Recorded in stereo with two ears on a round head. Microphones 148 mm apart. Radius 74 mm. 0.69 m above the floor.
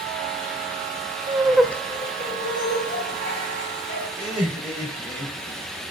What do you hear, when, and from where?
1.3 s laughter: 25° right (ahead or behind), 0.6 m; by 4.1 s 75° left (ahead or behind), 1.9 m
4.2 s laughter: 10° right (ahead or behind), 3 m